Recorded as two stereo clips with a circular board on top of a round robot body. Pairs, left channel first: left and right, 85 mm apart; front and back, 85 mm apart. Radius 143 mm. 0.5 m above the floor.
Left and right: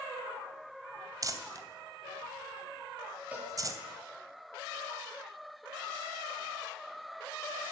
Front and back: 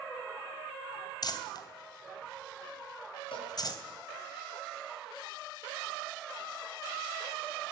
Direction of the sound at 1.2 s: 40° right.